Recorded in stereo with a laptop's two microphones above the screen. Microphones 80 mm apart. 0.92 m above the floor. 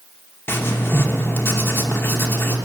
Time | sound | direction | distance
0.5 | writing | 30° left (ahead or behind) | 1.0 m